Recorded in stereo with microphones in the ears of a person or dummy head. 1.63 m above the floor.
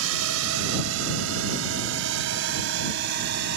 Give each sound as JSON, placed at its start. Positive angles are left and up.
{"t": 0.0, "sound": "a drone", "side_deg": -85}